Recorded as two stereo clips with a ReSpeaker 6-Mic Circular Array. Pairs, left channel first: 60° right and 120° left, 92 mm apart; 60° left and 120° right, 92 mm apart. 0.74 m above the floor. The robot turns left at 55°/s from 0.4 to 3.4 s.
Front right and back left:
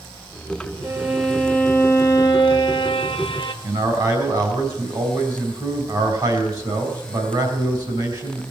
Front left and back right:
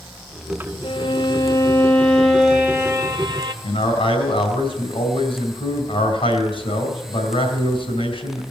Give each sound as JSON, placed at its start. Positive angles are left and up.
{"t": 0.8, "sound": "a violin", "azimuth_deg": 55, "distance_m": 1.3}
{"t": 3.6, "sound": "a man speaking", "azimuth_deg": 75, "distance_m": 3.5}